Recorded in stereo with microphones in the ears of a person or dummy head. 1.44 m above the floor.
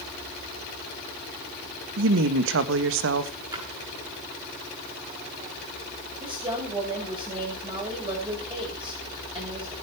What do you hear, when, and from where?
2.0 s a woman speaking: 65° right (ahead or behind), 1.8 m
3.5 s a splash: 25° right (ahead or behind), 8 m
6.2 s a woman speaking: 20° right (ahead or behind), 8.5 m